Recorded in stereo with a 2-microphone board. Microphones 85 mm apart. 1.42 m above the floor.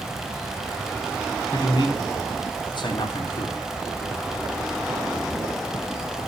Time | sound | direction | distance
1.5 | a man speaking | 65° left (ahead or behind) | 3 m